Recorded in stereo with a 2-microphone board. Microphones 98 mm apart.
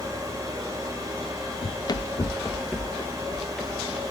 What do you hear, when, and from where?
1.6 s running footsteps: 65° left (ahead or behind), 0.6 m; by 4.0 s centre (ahead or behind), 3 m